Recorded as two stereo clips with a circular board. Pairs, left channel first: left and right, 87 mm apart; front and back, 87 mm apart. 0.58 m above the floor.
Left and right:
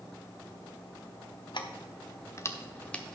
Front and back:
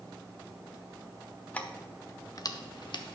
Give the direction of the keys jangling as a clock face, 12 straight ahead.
10 o'clock.